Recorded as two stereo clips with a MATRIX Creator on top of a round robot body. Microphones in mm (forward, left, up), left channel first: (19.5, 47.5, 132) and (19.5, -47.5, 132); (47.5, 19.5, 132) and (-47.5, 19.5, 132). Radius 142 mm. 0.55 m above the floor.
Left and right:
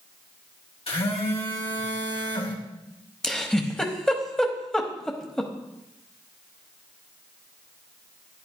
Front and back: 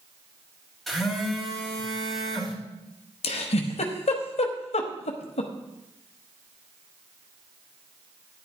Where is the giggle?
5° left, 0.9 m.